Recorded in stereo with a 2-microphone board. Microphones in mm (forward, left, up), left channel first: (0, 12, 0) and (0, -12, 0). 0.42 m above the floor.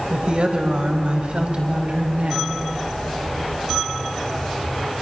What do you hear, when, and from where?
0.1 s a woman speaking: 50° right (ahead or behind), 2.5 m; by 2.5 s 70° right (ahead or behind), 3.5 m